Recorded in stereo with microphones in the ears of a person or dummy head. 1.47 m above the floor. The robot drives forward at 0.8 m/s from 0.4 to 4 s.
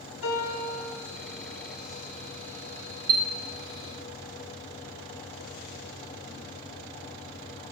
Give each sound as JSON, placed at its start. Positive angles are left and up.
{"t": 0.2, "sound": "a piano", "side_deg": 75, "distance_m": 1.1}
{"t": 3.1, "sound": "a chime", "side_deg": -50, "distance_m": 0.7}